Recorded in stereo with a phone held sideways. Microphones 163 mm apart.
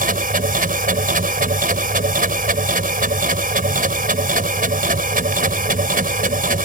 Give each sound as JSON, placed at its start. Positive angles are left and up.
{"t": 0.0, "sound": "a machine running", "side_deg": -60}